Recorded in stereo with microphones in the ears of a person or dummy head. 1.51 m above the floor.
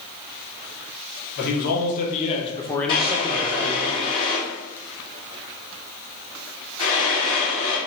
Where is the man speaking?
55° left (ahead or behind), 1.1 m; by 3.9 s 50° right (ahead or behind), 0.7 m.